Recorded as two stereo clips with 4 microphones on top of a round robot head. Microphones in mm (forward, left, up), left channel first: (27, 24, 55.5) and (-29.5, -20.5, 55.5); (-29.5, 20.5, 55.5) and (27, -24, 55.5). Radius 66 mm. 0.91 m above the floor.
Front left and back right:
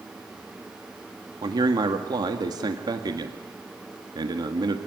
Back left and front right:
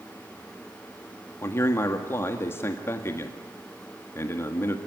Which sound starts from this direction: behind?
A man speaking, at 1.4 s.